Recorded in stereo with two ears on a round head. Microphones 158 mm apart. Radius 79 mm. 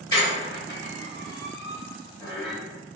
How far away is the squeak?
About 1.1 m.